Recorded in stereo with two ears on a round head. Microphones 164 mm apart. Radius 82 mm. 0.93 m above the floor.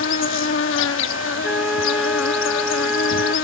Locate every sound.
0.0 s an insect: 75° left (ahead or behind)
1.4 s a flute: 5° right (ahead or behind)